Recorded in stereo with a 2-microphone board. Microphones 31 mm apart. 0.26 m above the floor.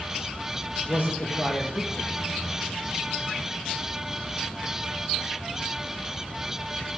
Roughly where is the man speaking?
Left.